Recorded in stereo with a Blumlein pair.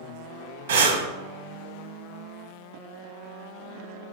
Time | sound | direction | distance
0.7 | breathing | 60° right | 0.7 m